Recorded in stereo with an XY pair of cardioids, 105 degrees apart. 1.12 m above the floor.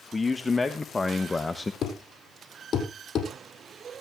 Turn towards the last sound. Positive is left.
turn(degrees=55)